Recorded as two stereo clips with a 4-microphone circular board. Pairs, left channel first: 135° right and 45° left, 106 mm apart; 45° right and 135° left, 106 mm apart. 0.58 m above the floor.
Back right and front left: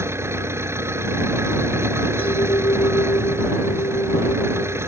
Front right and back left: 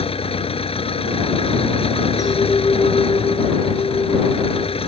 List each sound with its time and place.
0.0 s an engine running: 20° right
2.2 s a clink: 105° right